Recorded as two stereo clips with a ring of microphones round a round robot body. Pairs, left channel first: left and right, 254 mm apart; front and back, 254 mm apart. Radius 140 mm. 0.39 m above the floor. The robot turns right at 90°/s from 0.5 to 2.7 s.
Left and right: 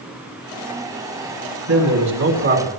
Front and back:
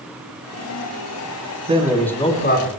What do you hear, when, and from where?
1.7 s a man speaking: 120° right, 4 m; by 2.7 s 25° right, 4 m